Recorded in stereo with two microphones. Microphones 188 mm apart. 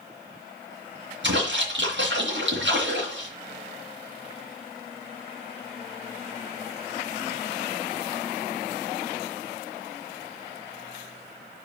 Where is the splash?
80° right, 2.5 m.